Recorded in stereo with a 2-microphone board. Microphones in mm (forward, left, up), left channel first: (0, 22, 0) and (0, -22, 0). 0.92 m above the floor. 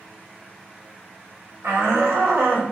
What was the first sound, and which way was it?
A shout, 80° right.